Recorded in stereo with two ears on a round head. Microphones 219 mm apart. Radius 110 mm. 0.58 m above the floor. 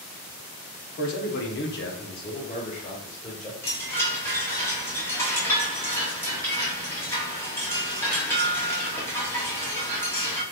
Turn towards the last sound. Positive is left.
turn(degrees=10)  # may be behind; listen again after turning